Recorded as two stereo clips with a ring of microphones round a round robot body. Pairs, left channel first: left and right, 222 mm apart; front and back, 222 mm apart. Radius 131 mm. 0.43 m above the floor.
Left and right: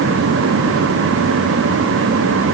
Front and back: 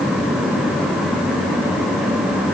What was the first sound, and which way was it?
Only background noise.